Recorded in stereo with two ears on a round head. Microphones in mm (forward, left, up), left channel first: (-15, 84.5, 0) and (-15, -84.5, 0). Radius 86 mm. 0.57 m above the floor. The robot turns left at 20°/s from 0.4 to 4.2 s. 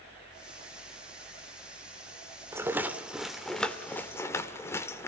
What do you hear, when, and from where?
2.5 s a rattle: 15° right (ahead or behind), 2.0 m; by 5.1 s 15° left (ahead or behind), 2.0 m